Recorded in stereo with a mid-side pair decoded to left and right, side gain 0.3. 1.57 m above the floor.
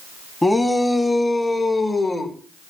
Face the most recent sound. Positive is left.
turn(degrees=55)